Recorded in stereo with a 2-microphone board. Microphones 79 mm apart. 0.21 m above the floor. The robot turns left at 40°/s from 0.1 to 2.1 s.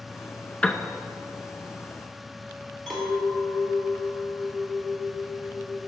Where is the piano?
15° left (ahead or behind), 0.5 m; by 0.8 s 20° left (ahead or behind), 0.5 m.